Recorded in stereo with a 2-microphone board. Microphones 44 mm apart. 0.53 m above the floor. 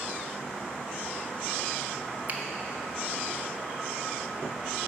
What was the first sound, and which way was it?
A finger snap, 40° right (ahead or behind).